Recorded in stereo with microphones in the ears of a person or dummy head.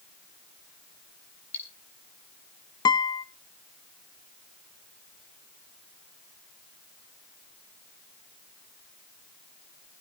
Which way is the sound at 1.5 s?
10° left (ahead or behind).